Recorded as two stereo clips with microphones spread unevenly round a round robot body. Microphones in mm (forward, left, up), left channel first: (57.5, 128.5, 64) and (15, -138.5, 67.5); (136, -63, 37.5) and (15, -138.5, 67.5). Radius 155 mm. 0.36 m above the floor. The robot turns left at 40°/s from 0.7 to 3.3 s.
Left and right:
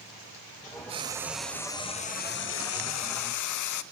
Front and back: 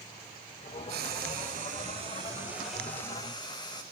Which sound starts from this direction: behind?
Frying, at 0.9 s.